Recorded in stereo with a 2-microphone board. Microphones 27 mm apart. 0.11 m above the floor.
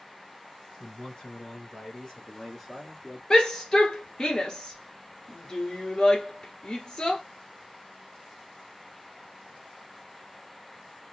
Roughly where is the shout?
Left.